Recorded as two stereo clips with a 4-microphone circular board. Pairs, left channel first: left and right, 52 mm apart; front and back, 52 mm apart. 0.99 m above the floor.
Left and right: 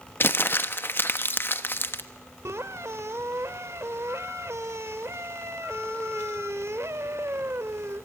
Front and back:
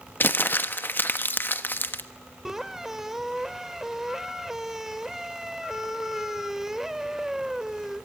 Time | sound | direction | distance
0.2 | crumpling | 50° left | 1.2 m
2.5 | a squeak | 100° right | 1.1 m